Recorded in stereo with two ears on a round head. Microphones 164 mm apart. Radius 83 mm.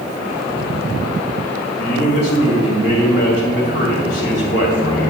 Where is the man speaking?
65° left (ahead or behind), 2.5 m.